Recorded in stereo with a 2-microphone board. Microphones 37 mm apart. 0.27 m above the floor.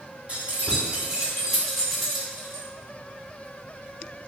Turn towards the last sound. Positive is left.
turn(degrees=15)  # may be behind; listen again after turning